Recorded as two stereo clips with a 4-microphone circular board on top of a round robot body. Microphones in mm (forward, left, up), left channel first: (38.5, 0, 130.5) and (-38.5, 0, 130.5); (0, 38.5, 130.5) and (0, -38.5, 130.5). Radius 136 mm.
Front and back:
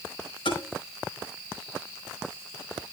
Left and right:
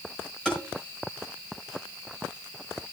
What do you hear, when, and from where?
0.5 s tapping: 5° left, 5 m